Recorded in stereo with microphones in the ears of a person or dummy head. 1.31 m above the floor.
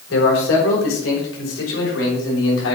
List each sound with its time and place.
0.1 s a man speaking: 75° left (ahead or behind), 4.5 m; by 2.8 s 85° left, 6.5 m